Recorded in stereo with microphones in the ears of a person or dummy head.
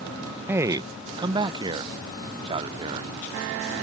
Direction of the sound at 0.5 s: 10° right (ahead or behind).